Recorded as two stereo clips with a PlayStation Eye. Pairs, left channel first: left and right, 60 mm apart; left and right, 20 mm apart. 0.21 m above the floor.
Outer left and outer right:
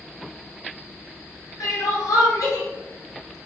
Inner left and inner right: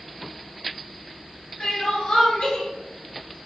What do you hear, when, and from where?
1.6 s crying: 70° left (ahead or behind), 1.4 m